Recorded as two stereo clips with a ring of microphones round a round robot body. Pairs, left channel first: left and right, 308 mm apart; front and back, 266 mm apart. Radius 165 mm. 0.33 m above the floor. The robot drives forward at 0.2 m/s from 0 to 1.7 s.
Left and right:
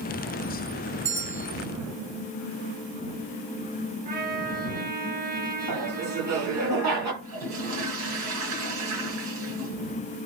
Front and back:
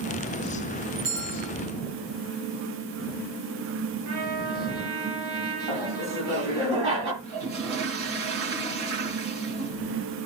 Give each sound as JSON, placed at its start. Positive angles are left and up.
{"t": 1.1, "sound": "a bell", "azimuth_deg": -150, "distance_m": 4.5}
{"t": 4.0, "sound": "a trumpet", "azimuth_deg": -155, "distance_m": 4.0}
{"t": 5.7, "sound": "laughter", "azimuth_deg": -130, "distance_m": 7.0}
{"t": 7.2, "sound": "a toilet flushing", "azimuth_deg": -135, "distance_m": 4.0}